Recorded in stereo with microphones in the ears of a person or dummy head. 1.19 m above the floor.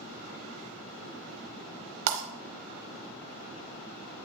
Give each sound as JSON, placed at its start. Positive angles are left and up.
{"t": 2.1, "sound": "breaking glass", "side_deg": -65, "distance_m": 1.0}